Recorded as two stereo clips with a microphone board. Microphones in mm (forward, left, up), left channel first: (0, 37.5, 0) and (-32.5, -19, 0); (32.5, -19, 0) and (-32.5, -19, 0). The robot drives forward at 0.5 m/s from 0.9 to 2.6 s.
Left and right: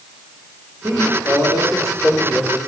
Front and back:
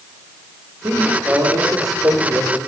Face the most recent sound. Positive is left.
turn(degrees=-165)